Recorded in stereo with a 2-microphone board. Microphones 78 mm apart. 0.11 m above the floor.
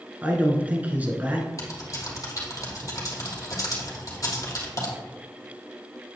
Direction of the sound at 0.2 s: 20° right (ahead or behind).